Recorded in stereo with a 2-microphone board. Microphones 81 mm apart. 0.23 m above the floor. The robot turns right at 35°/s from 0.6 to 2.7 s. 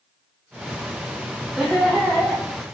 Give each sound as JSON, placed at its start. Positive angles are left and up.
{"t": 1.6, "sound": "laughter", "side_deg": 0, "distance_m": 0.9}